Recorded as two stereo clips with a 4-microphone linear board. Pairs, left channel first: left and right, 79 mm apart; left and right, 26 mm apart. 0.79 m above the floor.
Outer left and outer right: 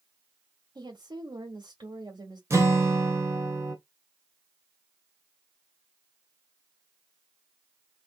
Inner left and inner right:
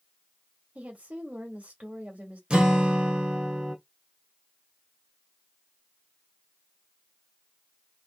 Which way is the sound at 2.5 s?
35° right (ahead or behind).